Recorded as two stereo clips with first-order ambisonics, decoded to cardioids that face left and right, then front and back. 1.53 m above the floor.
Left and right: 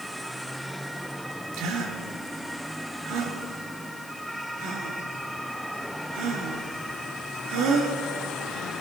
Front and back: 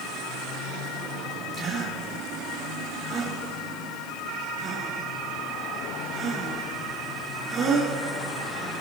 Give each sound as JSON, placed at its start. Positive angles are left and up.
{"t": 1.5, "sound": "a gasp", "azimuth_deg": -110, "distance_m": 4.0}